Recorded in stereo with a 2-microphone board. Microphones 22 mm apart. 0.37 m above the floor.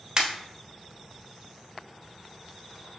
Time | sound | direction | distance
0.2 | a pop | 30° right (ahead or behind) | 1.0 m